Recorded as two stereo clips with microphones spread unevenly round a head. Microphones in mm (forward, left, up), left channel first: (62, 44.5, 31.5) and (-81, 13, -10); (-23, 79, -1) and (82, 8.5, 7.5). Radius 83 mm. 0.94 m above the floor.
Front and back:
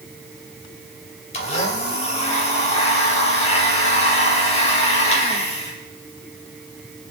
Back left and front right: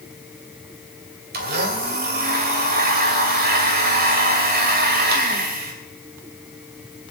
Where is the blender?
40° right, 2.5 m.